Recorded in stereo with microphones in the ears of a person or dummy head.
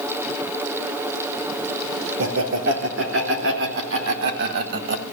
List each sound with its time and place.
2.2 s laughter: 75° right (ahead or behind), 4 m; by 5.0 s 65° right (ahead or behind), 1.8 m